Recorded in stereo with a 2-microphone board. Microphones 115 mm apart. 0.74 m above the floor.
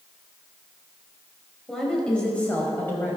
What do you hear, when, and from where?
1.7 s a woman speaking: 5° left (ahead or behind), 4.5 m; by 3.2 s 20° left (ahead or behind), 5 m